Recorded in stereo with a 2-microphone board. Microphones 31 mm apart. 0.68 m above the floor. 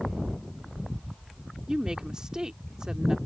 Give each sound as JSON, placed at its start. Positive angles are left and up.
{"t": 1.7, "sound": "a woman speaking", "side_deg": -25}